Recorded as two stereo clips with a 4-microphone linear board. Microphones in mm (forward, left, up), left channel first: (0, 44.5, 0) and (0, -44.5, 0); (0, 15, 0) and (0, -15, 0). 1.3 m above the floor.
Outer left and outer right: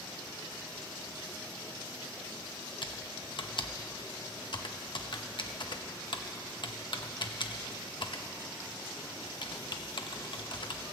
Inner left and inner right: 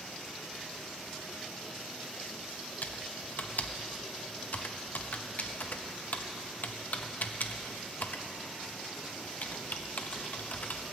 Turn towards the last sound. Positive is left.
turn(degrees=60)  # may be behind; listen again after turning